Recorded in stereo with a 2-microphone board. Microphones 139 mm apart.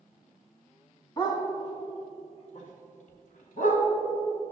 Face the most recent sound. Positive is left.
turn(degrees=65)  # may be behind; listen again after turning